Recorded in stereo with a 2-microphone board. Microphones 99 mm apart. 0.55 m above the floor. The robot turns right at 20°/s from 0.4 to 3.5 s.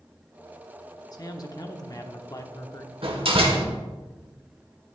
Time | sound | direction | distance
1.1 | a man speaking | 80° left | 1.0 m
3.0 | a door slam | 65° right (ahead or behind) | 1.3 m